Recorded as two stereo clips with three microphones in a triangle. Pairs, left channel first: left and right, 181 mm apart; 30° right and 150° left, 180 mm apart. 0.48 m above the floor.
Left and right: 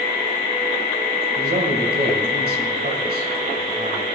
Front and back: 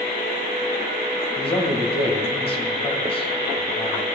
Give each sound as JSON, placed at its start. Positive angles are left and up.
{"t": 1.4, "sound": "a man speaking", "azimuth_deg": -85, "distance_m": 3.0}